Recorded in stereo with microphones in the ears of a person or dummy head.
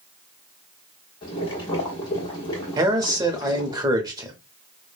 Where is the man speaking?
20° right (ahead or behind), 0.7 m.